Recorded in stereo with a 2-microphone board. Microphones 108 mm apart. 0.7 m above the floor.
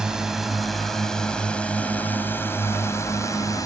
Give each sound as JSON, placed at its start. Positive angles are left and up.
{"t": 0.0, "sound": "a drone", "side_deg": -5}